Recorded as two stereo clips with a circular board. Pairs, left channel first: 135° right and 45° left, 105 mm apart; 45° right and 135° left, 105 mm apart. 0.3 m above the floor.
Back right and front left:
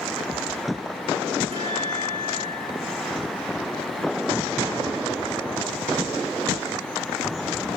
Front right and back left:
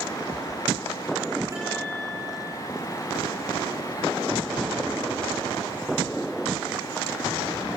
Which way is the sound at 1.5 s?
75° left.